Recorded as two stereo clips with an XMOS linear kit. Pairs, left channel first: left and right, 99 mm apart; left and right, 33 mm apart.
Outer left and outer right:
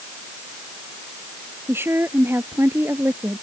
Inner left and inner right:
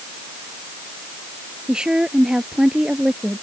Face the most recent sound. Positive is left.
turn(degrees=-25)  # may be behind; listen again after turning